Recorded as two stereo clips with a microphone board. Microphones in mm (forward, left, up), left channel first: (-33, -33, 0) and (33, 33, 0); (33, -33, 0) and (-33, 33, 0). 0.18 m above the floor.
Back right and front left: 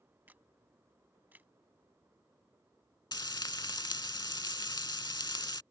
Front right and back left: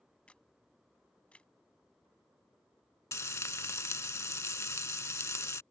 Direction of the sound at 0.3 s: 10° left.